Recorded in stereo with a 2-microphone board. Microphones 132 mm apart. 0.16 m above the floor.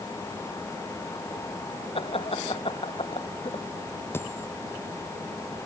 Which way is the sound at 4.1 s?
15° left (ahead or behind).